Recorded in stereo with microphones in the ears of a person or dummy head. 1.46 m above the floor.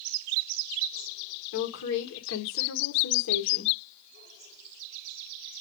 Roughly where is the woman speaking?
Left.